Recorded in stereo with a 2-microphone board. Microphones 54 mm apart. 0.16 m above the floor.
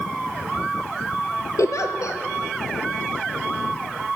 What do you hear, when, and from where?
1.6 s a giggle: 65° left (ahead or behind), 0.8 m